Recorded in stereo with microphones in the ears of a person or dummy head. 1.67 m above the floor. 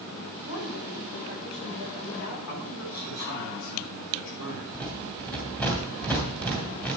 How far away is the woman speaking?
About 8 m.